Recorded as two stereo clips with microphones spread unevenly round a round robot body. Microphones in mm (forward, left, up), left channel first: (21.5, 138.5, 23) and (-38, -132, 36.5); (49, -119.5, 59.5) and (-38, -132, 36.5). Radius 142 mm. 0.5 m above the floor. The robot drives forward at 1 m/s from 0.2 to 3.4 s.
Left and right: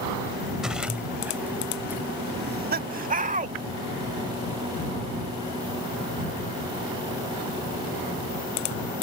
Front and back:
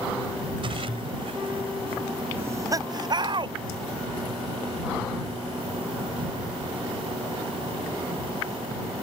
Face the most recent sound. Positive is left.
turn(degrees=-165)